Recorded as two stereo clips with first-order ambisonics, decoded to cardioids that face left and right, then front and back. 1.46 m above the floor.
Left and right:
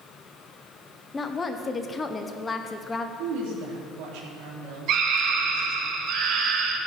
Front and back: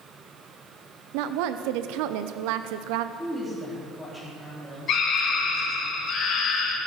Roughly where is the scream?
Ahead right.